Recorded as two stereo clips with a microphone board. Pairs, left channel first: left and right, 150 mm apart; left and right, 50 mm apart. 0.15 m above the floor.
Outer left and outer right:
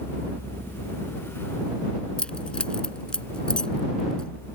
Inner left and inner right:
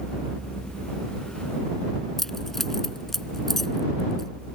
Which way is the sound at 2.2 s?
5° left (ahead or behind).